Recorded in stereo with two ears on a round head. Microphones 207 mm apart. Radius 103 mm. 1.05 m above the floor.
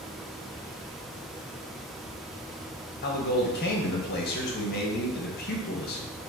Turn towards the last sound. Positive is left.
turn(degrees=45)  # may be behind; listen again after turning